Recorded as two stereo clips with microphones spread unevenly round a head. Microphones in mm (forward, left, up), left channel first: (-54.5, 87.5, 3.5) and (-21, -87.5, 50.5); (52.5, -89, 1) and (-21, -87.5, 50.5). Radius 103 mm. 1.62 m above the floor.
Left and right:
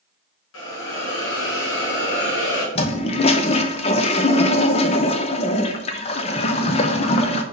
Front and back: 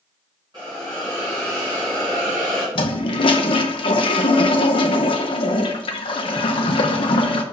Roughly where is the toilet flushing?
Ahead left.